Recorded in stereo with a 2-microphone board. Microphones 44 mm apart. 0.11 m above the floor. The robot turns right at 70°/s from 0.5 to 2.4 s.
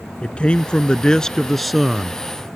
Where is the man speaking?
25° left (ahead or behind); by 2.2 s 15° right (ahead or behind).